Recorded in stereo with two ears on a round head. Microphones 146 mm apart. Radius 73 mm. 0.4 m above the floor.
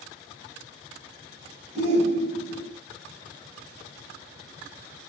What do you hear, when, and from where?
1.8 s a shout: 40° right (ahead or behind), 4 m